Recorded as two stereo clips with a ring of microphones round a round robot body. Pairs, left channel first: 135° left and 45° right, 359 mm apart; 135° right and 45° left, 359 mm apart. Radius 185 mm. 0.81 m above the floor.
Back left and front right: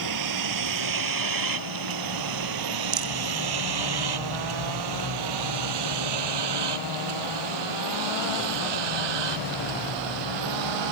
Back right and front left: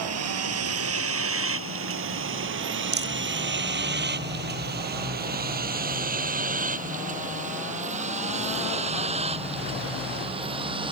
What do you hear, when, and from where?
0.0 s a vehicle: 5° right; by 10.9 s 30° right
2.9 s a rattle: 20° right